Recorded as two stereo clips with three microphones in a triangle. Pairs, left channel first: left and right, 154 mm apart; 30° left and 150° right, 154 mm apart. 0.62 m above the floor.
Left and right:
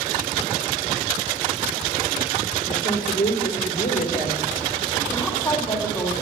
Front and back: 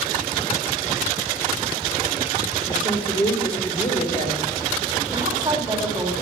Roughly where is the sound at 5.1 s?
Behind left.